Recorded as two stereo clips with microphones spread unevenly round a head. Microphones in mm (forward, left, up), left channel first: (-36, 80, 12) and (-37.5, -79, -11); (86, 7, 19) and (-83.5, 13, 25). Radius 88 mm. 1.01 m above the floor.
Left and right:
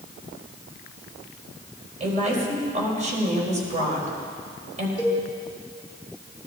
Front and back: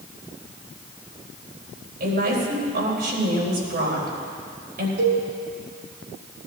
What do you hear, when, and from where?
2.0 s a woman speaking: 140° right, 4 m
5.0 s a cowbell: 170° right, 2.5 m